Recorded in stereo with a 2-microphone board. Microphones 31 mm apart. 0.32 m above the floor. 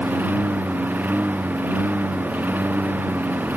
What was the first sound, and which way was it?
A lawn mower, 65° right (ahead or behind).